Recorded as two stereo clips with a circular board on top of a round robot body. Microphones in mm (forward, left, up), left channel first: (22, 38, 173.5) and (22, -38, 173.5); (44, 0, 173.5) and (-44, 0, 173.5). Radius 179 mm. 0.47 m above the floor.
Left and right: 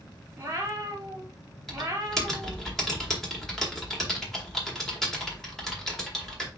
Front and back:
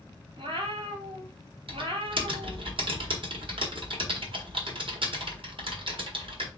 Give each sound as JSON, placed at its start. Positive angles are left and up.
{"t": 0.4, "sound": "a cat meowing", "azimuth_deg": -155, "distance_m": 1.4}
{"t": 1.7, "sound": "typing on a keyboard", "azimuth_deg": 175, "distance_m": 1.7}